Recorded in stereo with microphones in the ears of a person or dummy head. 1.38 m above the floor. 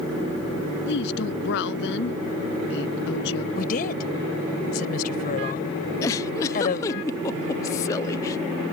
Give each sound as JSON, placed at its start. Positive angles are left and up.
{"t": 0.9, "sound": "a woman speaking", "side_deg": 70}
{"t": 3.5, "sound": "a woman speaking", "side_deg": 50}
{"t": 6.0, "sound": "a giggle", "side_deg": 20}